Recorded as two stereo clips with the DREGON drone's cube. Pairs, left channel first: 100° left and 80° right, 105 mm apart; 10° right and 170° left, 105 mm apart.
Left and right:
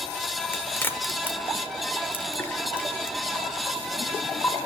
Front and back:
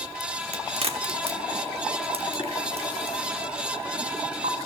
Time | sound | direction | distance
0.5 | a crack | 165° left | 1.0 m